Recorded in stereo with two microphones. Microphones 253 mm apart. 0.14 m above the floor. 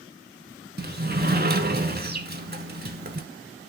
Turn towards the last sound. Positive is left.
turn(degrees=-40)  # may be behind; listen again after turning